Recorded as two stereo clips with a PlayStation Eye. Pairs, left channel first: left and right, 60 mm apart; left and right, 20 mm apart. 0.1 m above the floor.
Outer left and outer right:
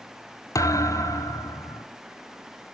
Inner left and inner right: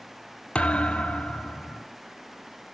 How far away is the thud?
About 1.2 m.